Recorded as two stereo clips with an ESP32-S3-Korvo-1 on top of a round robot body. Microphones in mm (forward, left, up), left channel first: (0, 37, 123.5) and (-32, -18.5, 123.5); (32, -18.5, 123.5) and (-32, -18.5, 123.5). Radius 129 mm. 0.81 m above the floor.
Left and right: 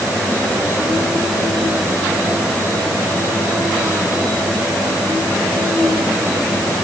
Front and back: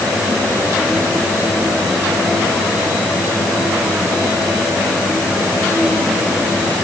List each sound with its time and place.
Only background noise.